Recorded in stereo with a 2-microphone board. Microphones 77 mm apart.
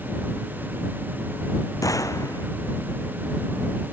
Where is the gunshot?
45° left (ahead or behind).